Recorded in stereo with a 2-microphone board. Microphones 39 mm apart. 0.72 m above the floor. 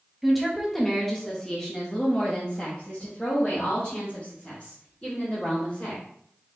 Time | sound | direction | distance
0.2 | a woman speaking | centre (ahead or behind) | 1.2 m